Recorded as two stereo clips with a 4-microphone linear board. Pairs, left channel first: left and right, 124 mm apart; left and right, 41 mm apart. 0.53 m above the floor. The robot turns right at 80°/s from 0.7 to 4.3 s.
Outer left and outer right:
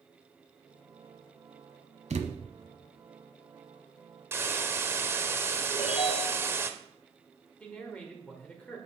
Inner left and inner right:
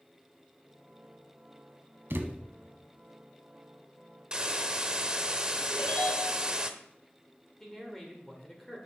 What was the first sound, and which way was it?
A thud, 75° right (ahead or behind).